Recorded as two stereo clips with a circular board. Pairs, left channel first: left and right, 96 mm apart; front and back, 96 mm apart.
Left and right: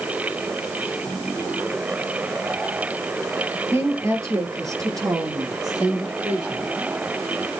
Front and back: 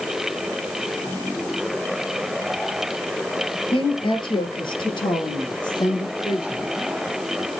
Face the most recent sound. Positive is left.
turn(degrees=-45)